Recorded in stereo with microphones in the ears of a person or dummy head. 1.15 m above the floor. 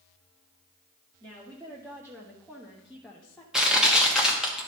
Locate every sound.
1.2 s a woman speaking: 15° right (ahead or behind), 1.9 m; by 3.4 s 10° left (ahead or behind), 0.9 m
3.5 s crushing: centre (ahead or behind), 1.3 m